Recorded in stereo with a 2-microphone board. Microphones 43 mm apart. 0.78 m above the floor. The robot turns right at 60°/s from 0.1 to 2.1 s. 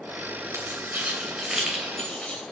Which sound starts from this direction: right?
Keys jangling, at 0.5 s.